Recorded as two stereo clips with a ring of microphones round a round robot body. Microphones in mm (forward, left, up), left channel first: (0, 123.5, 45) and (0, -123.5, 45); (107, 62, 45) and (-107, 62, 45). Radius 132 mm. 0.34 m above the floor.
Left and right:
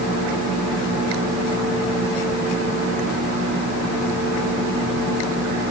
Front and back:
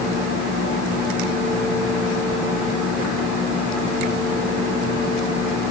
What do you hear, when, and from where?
Only background noise.